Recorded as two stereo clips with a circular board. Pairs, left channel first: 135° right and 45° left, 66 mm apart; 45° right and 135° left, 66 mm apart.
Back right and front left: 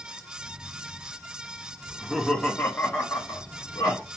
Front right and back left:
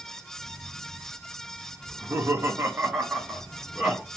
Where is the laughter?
120° left, 0.8 m; by 4.0 s 145° right, 1.3 m.